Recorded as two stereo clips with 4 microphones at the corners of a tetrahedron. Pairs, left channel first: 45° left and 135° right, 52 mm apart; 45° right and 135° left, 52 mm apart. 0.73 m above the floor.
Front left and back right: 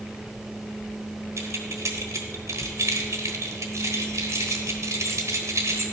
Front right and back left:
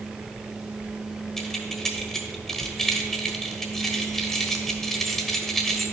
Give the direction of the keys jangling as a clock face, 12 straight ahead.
4 o'clock.